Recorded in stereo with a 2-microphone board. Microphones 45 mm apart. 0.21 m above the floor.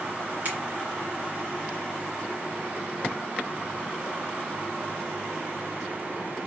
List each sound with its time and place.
0.5 s a finger snap: 40° right (ahead or behind), 1.9 m